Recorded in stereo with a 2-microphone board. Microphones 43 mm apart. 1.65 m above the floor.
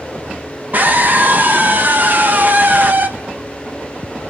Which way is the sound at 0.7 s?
45° right (ahead or behind).